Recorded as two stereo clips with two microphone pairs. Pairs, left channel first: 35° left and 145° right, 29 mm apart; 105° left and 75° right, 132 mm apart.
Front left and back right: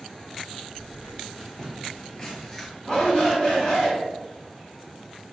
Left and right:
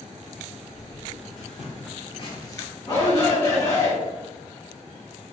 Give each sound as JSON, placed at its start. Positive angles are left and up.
{"t": 0.7, "sound": "footsteps", "azimuth_deg": 95, "distance_m": 1.4}
{"t": 2.9, "sound": "a shout", "azimuth_deg": 95, "distance_m": 1.9}